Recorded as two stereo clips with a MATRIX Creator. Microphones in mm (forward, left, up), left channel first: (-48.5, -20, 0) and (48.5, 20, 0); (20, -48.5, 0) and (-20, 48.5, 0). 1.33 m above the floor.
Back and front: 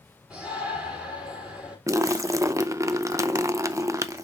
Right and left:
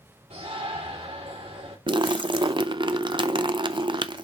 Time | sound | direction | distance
0.3 | a shout | 100° left | 3.5 m
1.9 | a splash | 80° left | 0.5 m